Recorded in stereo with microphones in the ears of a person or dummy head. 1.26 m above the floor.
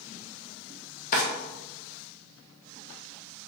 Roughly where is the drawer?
Left.